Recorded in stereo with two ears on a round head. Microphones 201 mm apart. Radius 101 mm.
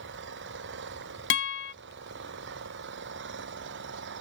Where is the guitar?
55° left (ahead or behind).